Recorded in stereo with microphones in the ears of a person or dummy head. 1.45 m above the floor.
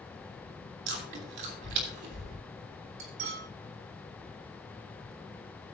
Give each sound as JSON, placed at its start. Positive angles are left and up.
{"t": 0.9, "sound": "chewing", "side_deg": -50, "distance_m": 3.0}
{"t": 3.0, "sound": "cutlery clinking", "side_deg": -65, "distance_m": 2.5}